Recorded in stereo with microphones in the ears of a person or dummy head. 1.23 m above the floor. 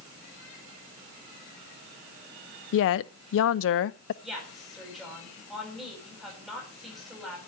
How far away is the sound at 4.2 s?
About 8.5 m.